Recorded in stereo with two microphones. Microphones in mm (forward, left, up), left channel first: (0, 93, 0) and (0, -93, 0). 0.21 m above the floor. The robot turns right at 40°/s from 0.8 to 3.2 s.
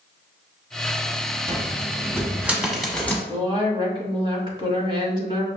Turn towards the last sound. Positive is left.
turn(degrees=-25)  # may be behind; listen again after turning